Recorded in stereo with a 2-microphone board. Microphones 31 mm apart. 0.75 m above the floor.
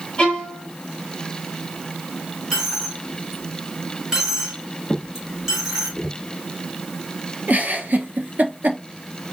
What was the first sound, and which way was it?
A violin, 30° left (ahead or behind).